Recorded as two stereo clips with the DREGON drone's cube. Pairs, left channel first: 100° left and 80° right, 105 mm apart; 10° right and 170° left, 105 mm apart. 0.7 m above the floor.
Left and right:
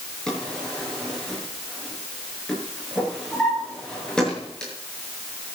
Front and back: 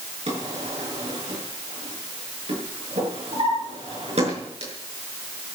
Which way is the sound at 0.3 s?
175° right.